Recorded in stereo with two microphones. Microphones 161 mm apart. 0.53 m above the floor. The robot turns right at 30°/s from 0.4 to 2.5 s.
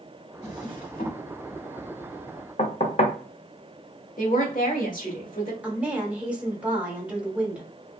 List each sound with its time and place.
0.4 s a drawer: 45° left (ahead or behind), 1.0 m; by 1.2 s 65° left (ahead or behind), 1.0 m
2.6 s knocking: 45° left (ahead or behind), 0.6 m
4.2 s a woman speaking: 55° left (ahead or behind), 1.4 m
5.6 s a woman speaking: 10° right (ahead or behind), 1.1 m